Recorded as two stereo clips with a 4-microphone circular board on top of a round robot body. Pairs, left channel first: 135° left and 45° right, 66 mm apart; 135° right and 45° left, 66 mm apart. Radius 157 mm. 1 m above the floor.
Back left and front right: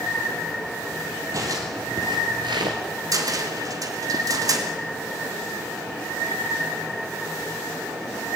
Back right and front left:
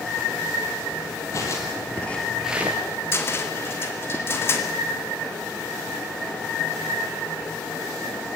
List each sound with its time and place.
1.3 s footsteps: 85° right, 2.5 m; by 2.8 s 10° right, 1.4 m
3.1 s a cupboard door: 80° right, 2.5 m